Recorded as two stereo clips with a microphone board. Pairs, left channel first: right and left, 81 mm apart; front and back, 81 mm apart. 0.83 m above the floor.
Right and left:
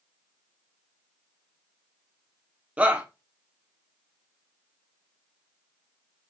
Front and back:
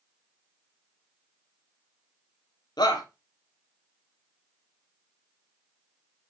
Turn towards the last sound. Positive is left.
turn(degrees=20)